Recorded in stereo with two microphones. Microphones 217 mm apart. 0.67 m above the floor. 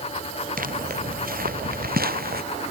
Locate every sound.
0.6 s footsteps: 40° right (ahead or behind); by 2.4 s 45° right (ahead or behind)